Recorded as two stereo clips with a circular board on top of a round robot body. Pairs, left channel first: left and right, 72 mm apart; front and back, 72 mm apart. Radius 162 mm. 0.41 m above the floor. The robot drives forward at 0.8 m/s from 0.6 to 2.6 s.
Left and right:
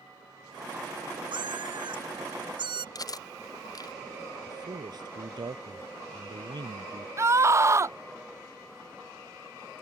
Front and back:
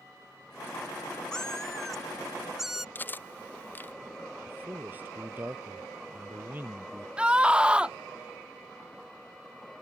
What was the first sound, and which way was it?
A cat meowing, 80° right.